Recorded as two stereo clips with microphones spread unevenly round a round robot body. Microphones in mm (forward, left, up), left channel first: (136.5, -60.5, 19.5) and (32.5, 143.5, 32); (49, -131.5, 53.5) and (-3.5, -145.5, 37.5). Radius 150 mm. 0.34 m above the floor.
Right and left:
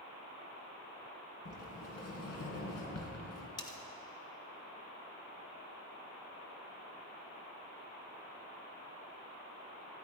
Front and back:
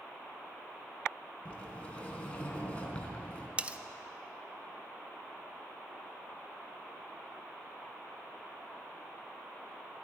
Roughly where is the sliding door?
Ahead right.